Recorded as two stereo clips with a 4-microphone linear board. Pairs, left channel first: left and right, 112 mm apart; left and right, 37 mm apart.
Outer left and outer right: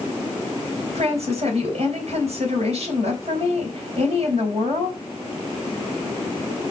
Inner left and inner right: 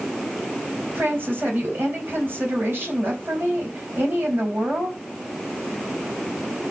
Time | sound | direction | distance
0.9 | a woman speaking | 65° right (ahead or behind) | 4 m